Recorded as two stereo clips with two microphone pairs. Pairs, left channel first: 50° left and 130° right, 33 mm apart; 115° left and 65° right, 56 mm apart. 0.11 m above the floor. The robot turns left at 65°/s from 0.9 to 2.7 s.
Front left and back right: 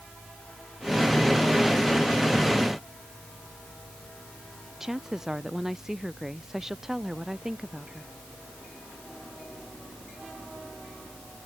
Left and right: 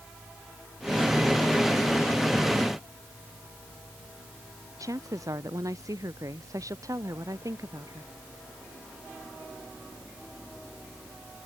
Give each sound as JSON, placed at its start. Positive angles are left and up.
{"t": 4.8, "sound": "a woman speaking", "azimuth_deg": -50}